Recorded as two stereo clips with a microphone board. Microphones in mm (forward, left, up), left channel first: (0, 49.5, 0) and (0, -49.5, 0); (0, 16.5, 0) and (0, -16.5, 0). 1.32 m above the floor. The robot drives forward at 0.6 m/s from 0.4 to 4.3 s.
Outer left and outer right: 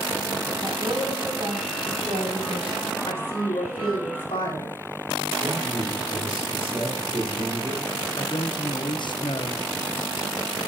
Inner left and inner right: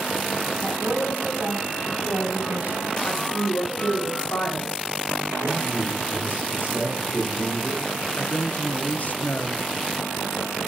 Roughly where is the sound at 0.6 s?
Right.